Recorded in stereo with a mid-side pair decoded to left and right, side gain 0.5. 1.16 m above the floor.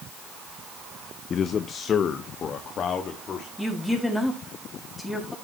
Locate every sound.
1.3 s a man speaking: 45° left, 0.6 m; by 3.5 s 50° left, 2.5 m
3.6 s a woman speaking: 10° left, 5.5 m